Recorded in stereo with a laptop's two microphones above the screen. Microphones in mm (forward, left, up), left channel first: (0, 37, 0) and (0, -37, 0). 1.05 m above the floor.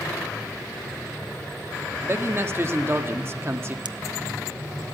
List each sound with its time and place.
2.0 s a man speaking: 35° right (ahead or behind), 1.7 m
3.9 s a pop: 75° right (ahead or behind), 0.7 m